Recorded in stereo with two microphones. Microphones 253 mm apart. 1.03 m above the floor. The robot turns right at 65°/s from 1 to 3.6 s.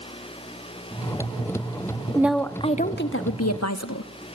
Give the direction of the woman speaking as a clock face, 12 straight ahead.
12 o'clock.